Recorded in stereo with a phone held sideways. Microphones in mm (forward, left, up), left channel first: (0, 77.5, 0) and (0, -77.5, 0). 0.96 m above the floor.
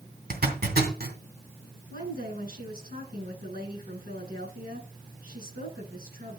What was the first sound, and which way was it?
A zipper, 80° right.